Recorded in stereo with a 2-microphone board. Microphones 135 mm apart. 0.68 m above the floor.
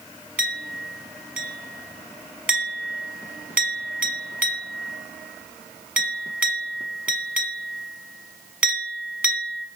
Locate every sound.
0.4 s a clink: 10° right (ahead or behind), 1.2 m